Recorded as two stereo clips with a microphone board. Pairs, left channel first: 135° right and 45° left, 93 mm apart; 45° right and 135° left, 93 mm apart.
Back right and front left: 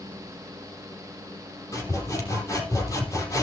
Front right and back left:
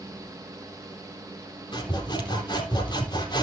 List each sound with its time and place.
1.7 s sawing: 80° right, 3.5 m